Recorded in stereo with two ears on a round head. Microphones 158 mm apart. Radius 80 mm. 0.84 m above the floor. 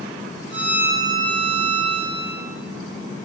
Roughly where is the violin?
Right.